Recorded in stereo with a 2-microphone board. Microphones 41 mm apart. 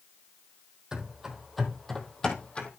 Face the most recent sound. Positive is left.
turn(degrees=30)  # may be behind; listen again after turning